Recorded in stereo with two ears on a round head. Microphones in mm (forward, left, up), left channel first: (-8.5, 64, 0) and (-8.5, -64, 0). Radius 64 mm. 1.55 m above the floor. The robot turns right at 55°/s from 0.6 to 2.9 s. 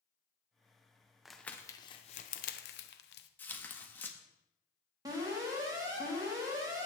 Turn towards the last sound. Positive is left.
turn(degrees=-25)  # may be behind; listen again after turning